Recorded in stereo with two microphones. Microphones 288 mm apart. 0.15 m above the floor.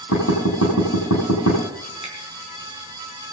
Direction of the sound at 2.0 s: 5° right (ahead or behind).